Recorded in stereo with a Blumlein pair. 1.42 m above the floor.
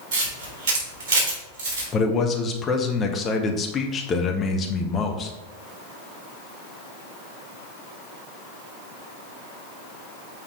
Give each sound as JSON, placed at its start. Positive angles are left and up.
{"t": 0.1, "sound": "a camera shutter", "azimuth_deg": -45, "distance_m": 3.5}
{"t": 1.9, "sound": "a man speaking", "azimuth_deg": 20, "distance_m": 1.2}